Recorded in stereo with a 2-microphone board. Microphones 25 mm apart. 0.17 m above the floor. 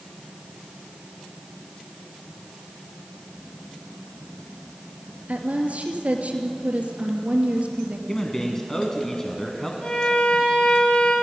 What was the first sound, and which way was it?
A woman speaking, 70° right (ahead or behind).